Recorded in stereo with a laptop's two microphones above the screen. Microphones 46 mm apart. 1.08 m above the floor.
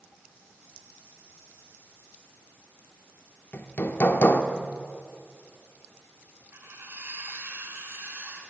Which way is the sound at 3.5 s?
50° left (ahead or behind).